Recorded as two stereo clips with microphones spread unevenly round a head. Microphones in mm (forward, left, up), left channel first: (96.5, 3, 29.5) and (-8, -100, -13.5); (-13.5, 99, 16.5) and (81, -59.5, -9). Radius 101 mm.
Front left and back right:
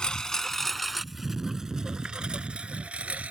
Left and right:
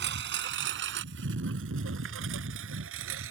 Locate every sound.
0.0 s a lawn mower: 30° right; by 3.3 s 50° right